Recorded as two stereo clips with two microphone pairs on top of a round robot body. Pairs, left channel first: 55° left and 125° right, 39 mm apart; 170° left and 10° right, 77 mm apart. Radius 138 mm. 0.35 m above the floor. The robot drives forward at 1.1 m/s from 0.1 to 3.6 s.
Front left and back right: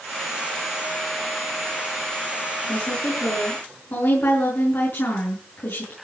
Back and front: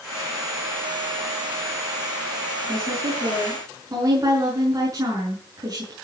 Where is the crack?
No crack in this recording.